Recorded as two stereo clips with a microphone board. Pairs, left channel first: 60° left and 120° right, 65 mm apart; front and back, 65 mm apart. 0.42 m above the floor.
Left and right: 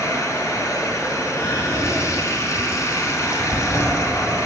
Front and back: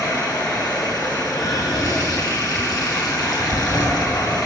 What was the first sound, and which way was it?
Running water, 15° left.